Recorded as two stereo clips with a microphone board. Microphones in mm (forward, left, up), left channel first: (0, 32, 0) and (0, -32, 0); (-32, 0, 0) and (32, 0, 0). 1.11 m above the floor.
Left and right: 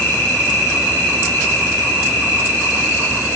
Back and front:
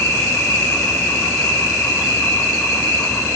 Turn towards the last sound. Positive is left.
turn(degrees=155)